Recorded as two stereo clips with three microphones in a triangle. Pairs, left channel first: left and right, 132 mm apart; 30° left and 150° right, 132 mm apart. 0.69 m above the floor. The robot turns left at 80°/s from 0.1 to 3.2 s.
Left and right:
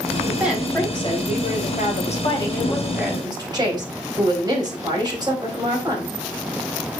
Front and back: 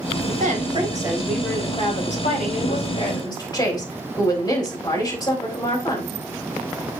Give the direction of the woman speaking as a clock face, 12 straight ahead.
5 o'clock.